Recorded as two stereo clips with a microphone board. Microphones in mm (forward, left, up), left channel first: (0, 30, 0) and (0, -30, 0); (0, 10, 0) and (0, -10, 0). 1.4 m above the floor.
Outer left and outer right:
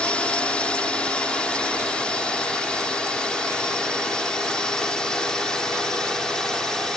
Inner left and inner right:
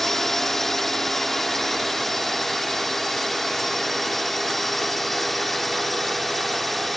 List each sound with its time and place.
0.0 s a drone: 20° left (ahead or behind); by 7.0 s 10° left (ahead or behind)